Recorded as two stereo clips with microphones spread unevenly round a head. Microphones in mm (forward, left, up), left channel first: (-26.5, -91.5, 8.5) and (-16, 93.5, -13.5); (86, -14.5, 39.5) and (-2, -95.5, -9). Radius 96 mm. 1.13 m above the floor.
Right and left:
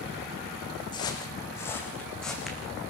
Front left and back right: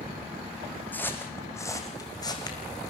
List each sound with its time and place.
0.9 s footsteps: 25° right, 4 m; by 2.6 s 5° right, 4 m